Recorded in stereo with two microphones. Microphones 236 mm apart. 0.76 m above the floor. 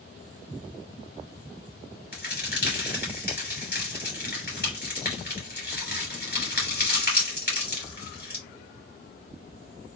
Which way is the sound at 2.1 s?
45° left (ahead or behind).